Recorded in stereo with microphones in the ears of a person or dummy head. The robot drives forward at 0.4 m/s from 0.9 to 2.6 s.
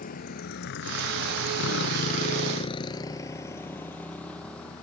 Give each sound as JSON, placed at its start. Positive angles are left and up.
{"t": 0.0, "sound": "a motorcycle", "side_deg": 45}